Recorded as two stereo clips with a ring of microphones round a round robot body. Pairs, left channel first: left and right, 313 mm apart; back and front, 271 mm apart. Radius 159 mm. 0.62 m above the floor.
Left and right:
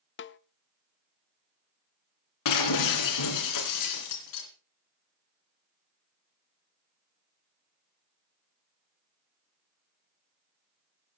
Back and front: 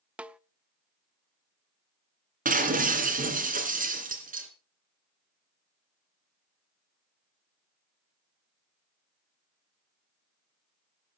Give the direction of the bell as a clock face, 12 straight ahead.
I don't hear a bell.